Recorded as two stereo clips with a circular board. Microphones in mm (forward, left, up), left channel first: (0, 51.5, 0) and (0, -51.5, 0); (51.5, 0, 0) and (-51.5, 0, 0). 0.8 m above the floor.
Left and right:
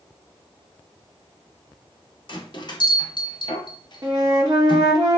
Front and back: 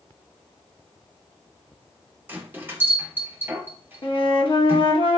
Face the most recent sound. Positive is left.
turn(degrees=-40)